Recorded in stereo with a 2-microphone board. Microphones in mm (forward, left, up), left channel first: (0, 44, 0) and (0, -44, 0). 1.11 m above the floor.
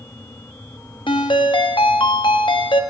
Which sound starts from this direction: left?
A ringtone, at 1.1 s.